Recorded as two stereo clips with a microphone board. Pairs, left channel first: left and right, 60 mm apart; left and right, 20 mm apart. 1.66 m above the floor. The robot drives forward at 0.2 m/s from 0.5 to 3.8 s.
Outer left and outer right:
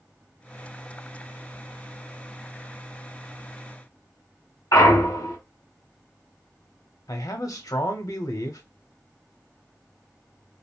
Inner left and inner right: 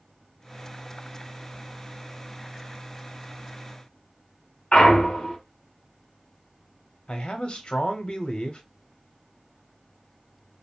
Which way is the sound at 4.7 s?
85° left.